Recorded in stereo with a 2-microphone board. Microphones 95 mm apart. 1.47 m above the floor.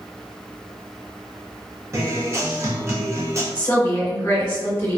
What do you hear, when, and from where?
1.9 s a guitar: 30° right (ahead or behind), 0.6 m
3.5 s a woman speaking: 30° left (ahead or behind), 1.4 m